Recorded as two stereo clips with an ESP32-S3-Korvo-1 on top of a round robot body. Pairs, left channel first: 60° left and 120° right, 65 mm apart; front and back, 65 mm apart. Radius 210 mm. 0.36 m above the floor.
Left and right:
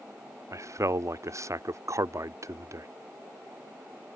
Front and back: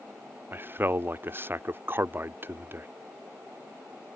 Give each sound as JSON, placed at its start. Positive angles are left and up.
{"t": 0.5, "sound": "a man speaking", "azimuth_deg": -135}